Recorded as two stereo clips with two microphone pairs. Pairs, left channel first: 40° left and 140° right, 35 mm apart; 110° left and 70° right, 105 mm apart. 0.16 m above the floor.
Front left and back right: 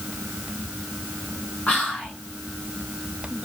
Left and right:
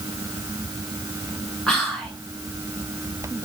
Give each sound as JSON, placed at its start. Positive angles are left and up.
{"t": 1.7, "sound": "whispering", "azimuth_deg": 30, "distance_m": 1.6}